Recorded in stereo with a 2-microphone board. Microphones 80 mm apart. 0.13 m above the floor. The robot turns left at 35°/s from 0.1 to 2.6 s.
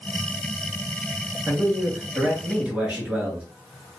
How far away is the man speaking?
About 2 m.